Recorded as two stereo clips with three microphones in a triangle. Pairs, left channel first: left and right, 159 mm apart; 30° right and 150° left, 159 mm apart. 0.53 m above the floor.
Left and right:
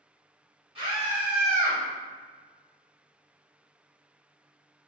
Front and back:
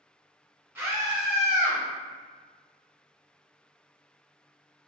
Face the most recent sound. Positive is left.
turn(degrees=150)